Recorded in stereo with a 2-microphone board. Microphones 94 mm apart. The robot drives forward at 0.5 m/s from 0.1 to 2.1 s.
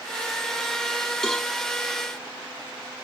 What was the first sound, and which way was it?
A cowbell, 5° left (ahead or behind).